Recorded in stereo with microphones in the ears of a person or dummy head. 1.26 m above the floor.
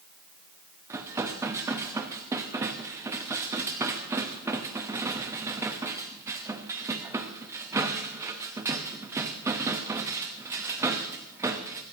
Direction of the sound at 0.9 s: 10° right (ahead or behind).